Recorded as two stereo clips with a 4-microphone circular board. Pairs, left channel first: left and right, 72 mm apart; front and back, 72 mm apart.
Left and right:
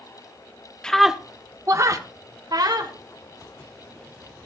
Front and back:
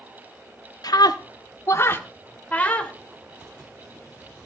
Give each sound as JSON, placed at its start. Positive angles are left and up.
{"t": 0.8, "sound": "a scream", "azimuth_deg": 10, "distance_m": 1.0}